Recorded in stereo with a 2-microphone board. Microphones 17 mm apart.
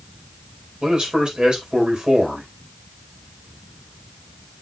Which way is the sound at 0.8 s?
65° right (ahead or behind).